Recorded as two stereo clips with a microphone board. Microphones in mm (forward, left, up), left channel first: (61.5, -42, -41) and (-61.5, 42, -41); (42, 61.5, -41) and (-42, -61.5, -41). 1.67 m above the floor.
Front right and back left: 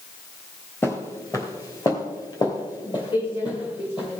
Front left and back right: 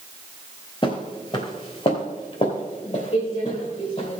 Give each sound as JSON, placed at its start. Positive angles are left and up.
{"t": 0.8, "sound": "footsteps", "azimuth_deg": 30, "distance_m": 1.9}